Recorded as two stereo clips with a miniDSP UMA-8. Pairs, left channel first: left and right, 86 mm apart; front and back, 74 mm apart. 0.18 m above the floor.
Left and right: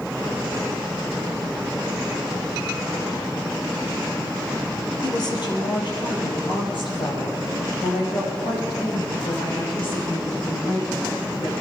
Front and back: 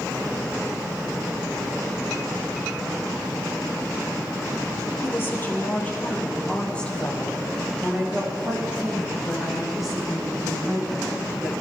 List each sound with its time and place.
5.0 s a woman speaking: 55° left, 3.5 m; by 11.5 s 95° left, 8.5 m